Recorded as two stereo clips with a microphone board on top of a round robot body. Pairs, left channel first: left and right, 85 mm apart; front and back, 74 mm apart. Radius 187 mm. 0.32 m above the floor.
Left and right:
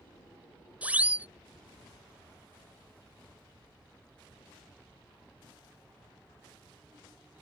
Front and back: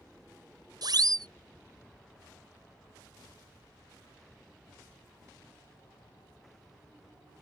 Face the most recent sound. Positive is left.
turn(degrees=-160)